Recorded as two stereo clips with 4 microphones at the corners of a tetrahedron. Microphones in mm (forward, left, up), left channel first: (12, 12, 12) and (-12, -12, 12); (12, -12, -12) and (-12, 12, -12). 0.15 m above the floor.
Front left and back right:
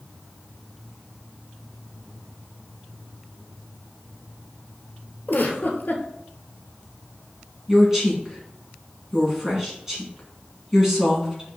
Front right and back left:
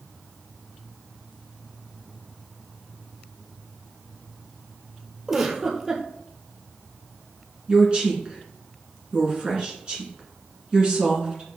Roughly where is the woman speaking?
Behind.